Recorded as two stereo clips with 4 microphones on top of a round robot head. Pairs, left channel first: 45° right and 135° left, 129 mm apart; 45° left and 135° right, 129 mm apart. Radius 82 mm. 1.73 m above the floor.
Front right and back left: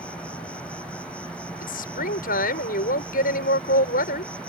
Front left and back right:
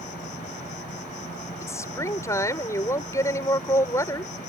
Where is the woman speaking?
25° right.